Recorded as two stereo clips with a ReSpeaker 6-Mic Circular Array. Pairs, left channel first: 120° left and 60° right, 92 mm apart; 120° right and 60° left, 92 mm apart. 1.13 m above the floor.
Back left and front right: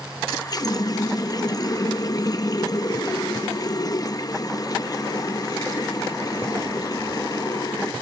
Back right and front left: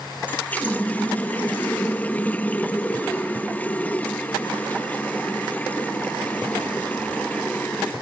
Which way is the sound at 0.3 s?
165° left.